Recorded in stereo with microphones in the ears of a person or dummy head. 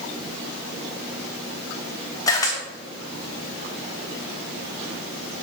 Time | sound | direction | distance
2.3 | a camera shutter | 15° left (ahead or behind) | 1.4 m